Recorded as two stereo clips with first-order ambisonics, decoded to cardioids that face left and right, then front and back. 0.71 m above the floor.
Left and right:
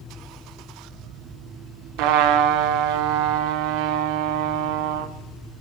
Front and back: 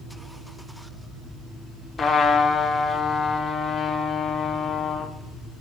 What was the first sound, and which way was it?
A trumpet, 75° right.